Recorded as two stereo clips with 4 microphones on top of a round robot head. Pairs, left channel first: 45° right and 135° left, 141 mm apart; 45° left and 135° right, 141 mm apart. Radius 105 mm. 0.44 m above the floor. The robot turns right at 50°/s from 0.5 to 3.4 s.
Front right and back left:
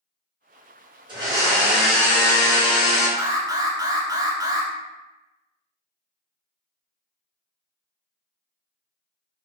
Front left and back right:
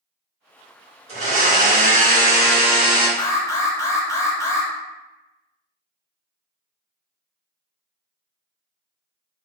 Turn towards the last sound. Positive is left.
turn(degrees=95)